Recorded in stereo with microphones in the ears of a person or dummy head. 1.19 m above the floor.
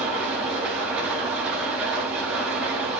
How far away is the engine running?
About 7 m.